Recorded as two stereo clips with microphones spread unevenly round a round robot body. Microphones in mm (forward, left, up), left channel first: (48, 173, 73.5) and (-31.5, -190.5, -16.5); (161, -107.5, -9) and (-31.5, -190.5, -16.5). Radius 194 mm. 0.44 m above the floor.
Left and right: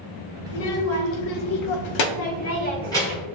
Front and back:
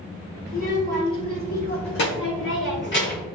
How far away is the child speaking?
About 1.6 m.